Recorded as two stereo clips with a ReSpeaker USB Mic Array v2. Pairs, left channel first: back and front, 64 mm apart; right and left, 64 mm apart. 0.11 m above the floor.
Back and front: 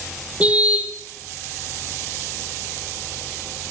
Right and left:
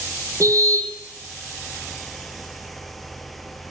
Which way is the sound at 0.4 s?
65° left.